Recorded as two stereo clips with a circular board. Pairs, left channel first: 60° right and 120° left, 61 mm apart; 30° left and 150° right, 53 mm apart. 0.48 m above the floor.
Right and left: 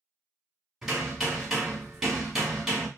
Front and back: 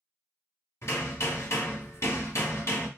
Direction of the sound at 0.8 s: 35° left.